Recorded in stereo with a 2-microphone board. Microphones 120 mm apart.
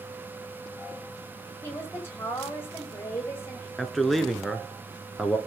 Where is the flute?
I don't hear a flute.